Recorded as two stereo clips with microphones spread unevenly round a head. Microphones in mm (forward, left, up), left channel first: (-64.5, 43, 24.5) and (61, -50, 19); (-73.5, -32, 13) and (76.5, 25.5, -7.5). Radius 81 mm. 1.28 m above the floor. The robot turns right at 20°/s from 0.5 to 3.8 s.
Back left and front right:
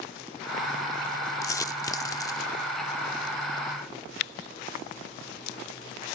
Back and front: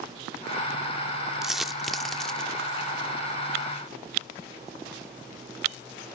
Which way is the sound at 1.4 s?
130° left.